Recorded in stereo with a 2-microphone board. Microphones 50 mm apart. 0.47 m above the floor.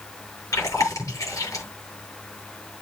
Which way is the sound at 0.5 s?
80° left.